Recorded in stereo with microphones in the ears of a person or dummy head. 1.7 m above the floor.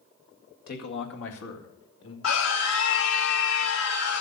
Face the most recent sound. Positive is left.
turn(degrees=85)